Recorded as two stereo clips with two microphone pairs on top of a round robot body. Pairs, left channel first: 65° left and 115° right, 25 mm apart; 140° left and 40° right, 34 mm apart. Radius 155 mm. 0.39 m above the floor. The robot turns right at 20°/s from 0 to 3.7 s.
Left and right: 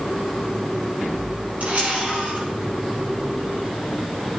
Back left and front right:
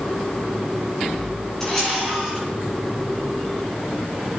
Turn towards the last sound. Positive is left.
turn(degrees=-100)